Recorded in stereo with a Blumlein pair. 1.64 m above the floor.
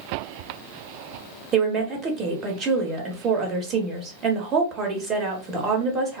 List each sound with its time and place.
1.5 s a woman speaking: 25° right, 1.1 m